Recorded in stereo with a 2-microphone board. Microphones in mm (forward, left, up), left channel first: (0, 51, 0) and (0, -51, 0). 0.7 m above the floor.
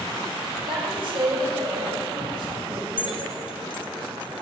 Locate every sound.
0.7 s a woman speaking: 55° right (ahead or behind), 3.5 m
3.0 s keys jangling: 55° left (ahead or behind), 1.8 m